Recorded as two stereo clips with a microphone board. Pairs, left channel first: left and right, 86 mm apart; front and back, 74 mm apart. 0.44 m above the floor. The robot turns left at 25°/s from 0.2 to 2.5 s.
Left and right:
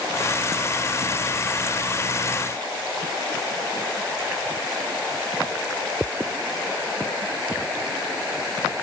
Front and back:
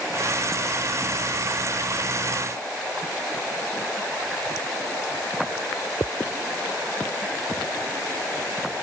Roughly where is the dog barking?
No dog barking in this recording.